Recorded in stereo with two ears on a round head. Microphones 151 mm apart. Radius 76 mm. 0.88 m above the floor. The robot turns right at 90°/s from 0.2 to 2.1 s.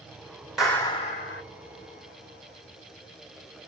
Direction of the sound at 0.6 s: 5° right.